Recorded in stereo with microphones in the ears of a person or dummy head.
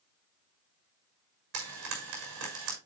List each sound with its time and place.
1.5 s frying: 85° right, 6 m